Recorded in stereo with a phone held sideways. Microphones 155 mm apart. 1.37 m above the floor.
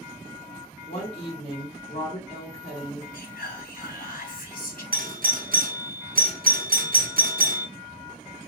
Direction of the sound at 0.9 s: 40° left (ahead or behind).